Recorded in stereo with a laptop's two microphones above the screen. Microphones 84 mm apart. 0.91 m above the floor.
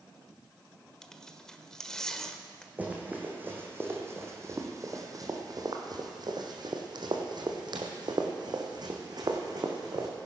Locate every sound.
1.0 s tearing paper: 10° left (ahead or behind), 1.1 m
2.8 s running footsteps: 20° right (ahead or behind), 2 m; by 10.1 s 50° right (ahead or behind), 3 m